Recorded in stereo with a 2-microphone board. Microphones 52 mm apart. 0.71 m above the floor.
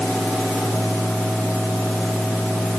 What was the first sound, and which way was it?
Only background noise.